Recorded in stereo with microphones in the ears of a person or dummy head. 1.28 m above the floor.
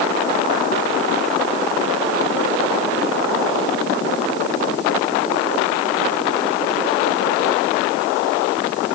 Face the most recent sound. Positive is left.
No sound to turn to.